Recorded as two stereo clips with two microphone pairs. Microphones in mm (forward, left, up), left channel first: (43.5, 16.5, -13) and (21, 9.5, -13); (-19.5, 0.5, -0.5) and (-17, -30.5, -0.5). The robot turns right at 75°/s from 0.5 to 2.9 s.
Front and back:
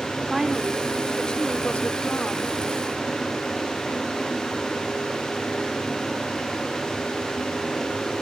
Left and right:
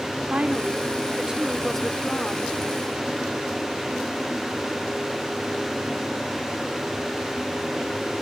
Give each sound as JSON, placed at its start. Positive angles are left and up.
{"t": 0.3, "sound": "a woman speaking", "azimuth_deg": -90}